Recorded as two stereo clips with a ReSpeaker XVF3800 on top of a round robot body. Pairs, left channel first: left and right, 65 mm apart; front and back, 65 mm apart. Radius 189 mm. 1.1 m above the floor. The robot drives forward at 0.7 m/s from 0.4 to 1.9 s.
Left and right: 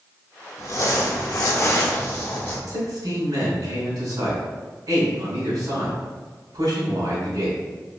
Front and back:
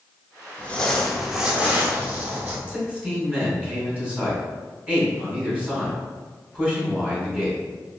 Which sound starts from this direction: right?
A man speaking, at 2.7 s.